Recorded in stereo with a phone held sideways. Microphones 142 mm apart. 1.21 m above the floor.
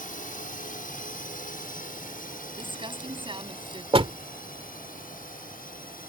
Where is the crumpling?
35° right (ahead or behind).